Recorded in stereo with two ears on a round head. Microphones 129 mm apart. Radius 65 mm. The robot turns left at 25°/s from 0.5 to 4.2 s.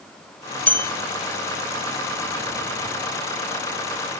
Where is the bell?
10° left (ahead or behind), 0.5 m; by 0.9 s 20° left (ahead or behind), 0.5 m.